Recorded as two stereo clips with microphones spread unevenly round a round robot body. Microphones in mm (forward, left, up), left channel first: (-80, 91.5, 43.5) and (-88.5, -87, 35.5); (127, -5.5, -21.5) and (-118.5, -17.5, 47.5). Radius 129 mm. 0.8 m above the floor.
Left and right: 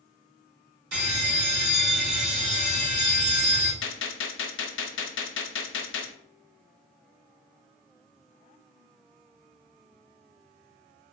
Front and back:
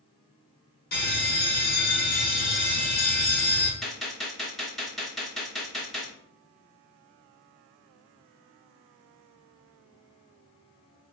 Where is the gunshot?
95° left, 0.5 m.